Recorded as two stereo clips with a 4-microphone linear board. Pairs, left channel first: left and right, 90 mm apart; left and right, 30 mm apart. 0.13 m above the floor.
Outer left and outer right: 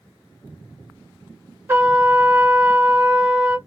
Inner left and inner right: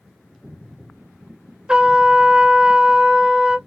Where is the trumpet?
25° right (ahead or behind), 1.0 m.